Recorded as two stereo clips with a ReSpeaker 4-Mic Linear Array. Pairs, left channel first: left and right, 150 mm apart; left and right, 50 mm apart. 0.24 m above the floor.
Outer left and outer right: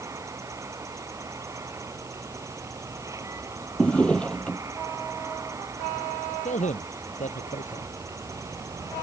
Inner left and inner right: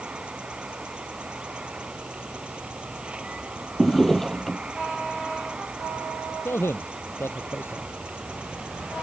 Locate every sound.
0.0 s an insect: 20° right (ahead or behind)
3.8 s a drawer: 5° left (ahead or behind)
6.5 s a man speaking: 55° left (ahead or behind)